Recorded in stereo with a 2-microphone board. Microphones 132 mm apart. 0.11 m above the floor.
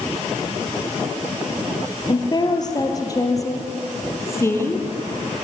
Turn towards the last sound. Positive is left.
turn(degrees=20)  # may be behind; listen again after turning